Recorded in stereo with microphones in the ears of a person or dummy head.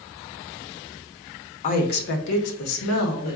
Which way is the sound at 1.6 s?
40° left (ahead or behind).